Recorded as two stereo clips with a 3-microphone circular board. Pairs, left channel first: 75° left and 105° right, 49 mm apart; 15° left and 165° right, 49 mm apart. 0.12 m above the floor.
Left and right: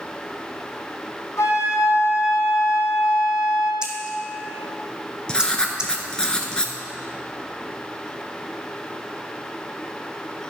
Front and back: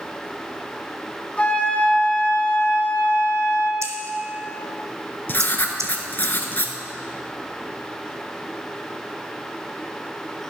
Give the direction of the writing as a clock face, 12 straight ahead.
12 o'clock.